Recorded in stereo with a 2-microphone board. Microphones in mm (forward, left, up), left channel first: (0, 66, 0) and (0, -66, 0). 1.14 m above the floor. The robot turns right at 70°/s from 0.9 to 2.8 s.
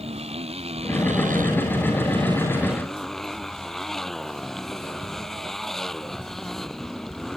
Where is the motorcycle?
130° right; by 7.4 s straight ahead.